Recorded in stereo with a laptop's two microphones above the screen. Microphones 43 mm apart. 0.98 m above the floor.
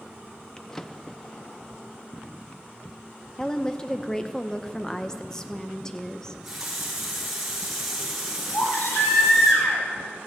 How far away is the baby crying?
About 3 m.